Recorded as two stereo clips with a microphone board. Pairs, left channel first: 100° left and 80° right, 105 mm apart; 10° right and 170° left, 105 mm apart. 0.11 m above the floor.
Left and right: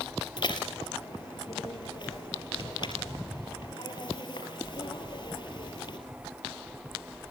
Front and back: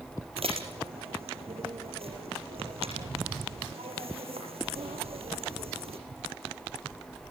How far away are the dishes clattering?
About 5 m.